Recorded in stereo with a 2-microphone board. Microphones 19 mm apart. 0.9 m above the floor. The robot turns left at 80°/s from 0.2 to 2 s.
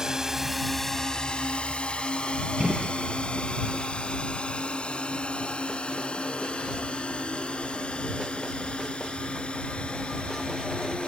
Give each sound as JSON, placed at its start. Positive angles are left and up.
{"t": 0.0, "sound": "a drone", "side_deg": -30}
{"t": 2.6, "sound": "a gunshot", "side_deg": -55}